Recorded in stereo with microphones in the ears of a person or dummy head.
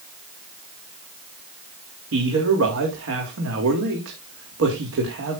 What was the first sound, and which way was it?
A man speaking, 70° right (ahead or behind).